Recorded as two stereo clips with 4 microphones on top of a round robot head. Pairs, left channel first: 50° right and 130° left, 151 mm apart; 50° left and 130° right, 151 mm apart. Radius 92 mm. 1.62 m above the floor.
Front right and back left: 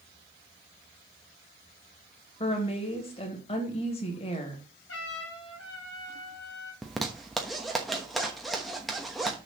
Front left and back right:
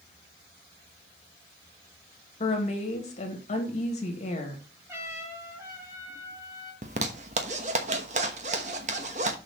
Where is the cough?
No cough in this recording.